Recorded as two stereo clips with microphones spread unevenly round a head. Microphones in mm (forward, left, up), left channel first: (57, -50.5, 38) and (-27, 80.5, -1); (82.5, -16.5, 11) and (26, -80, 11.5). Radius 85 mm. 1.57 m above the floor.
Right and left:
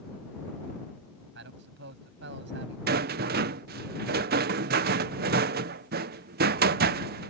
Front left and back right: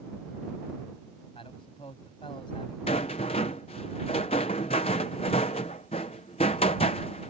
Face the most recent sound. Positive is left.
turn(degrees=90)